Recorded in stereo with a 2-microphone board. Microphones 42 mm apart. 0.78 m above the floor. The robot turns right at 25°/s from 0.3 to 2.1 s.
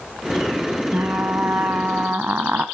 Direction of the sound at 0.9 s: 55° right (ahead or behind).